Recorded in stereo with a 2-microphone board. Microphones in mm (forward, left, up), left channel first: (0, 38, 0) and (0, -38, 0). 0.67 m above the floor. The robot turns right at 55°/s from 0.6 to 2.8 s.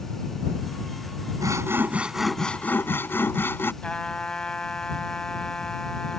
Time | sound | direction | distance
1.4 | sawing | 50° right | ?
3.8 | a trumpet | 10° left (ahead or behind) | ?